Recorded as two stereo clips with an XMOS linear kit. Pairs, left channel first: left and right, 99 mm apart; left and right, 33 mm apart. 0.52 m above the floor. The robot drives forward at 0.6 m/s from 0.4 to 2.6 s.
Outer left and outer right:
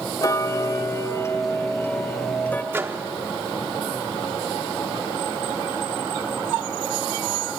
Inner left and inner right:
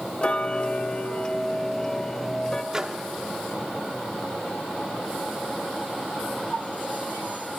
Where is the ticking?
35° left (ahead or behind), 0.9 m; by 2.6 s 20° left (ahead or behind), 1.8 m.